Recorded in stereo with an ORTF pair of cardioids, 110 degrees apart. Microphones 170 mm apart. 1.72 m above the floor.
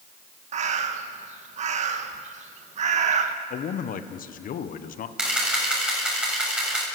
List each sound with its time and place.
0.5 s a bird: 45° right, 1.8 m
3.5 s a man speaking: 55° left, 1.4 m
5.2 s a camera shutter: 5° right, 7.5 m